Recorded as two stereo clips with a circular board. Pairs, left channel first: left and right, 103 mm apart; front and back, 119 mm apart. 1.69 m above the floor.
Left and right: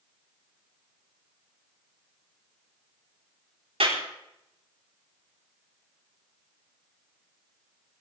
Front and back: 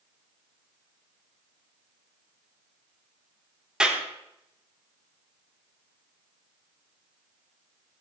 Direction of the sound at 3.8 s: 95° right.